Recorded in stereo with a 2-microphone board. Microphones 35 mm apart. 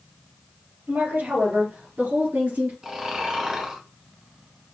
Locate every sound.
0.9 s a woman speaking: 65° right (ahead or behind), 4 m; by 2.7 s 55° right (ahead or behind), 3 m
2.8 s snoring: 15° right (ahead or behind), 1.4 m